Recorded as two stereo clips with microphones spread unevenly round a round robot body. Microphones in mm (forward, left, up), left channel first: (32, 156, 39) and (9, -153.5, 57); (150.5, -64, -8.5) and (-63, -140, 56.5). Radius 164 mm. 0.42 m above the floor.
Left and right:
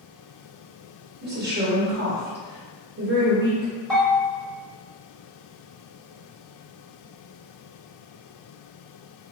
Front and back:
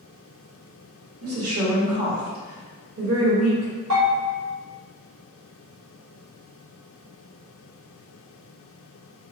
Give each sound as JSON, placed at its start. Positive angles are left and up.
{"t": 1.2, "sound": "a woman speaking", "azimuth_deg": -145, "distance_m": 1.2}
{"t": 3.9, "sound": "a bell", "azimuth_deg": 175, "distance_m": 1.2}